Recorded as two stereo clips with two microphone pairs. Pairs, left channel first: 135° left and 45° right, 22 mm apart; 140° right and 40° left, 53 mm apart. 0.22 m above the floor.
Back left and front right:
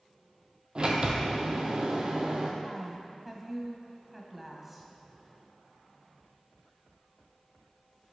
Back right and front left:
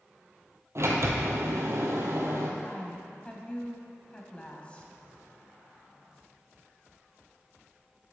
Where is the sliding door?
5° left, 1.2 m.